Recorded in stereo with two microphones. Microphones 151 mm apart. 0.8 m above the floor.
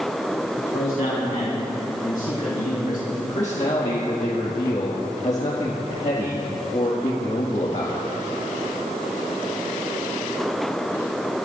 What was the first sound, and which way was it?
A man speaking, 70° left (ahead or behind).